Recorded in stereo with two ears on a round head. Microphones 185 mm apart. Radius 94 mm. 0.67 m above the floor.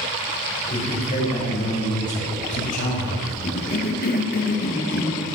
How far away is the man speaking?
About 3.5 m.